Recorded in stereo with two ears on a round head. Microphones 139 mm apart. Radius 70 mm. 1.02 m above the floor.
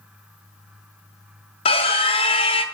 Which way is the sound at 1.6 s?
35° left (ahead or behind).